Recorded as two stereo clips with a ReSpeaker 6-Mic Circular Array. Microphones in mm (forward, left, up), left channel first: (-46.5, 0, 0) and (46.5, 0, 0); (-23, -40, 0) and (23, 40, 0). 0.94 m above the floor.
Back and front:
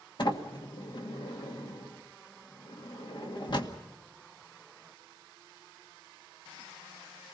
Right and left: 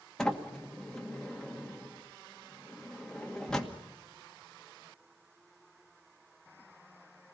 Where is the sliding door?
160° left, 1.9 m.